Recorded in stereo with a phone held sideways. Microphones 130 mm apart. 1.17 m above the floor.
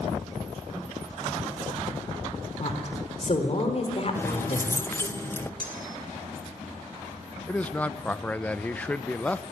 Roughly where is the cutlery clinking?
Right.